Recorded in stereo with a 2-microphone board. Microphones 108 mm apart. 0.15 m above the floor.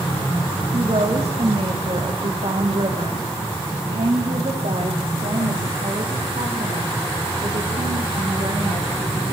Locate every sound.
0.7 s a woman speaking: 65° right (ahead or behind), 8.5 m; by 9.3 s 75° right (ahead or behind), 13 m